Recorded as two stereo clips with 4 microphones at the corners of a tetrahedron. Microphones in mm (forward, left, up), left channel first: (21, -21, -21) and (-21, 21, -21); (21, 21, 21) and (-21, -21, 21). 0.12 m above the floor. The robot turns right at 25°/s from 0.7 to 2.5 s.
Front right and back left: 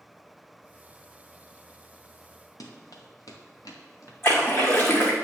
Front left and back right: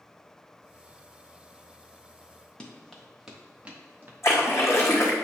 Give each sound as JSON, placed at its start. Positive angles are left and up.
{"t": 2.6, "sound": "running footsteps", "azimuth_deg": -30, "distance_m": 1.7}
{"t": 4.2, "sound": "a splash", "azimuth_deg": 5, "distance_m": 2.0}